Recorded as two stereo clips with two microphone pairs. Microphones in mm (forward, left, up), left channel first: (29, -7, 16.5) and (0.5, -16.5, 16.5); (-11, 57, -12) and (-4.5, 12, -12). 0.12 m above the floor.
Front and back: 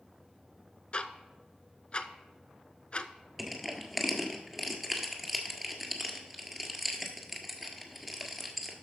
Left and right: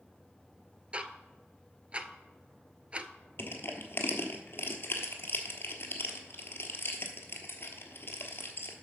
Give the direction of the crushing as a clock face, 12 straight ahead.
8 o'clock.